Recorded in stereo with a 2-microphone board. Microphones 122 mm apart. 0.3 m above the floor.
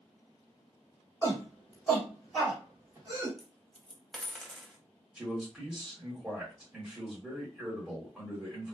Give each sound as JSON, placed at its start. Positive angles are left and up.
{"t": 1.2, "sound": "a shout", "side_deg": 25, "distance_m": 1.6}
{"t": 3.4, "sound": "a dropped coin", "side_deg": 5, "distance_m": 0.6}
{"t": 5.2, "sound": "a man speaking", "side_deg": -5, "distance_m": 1.5}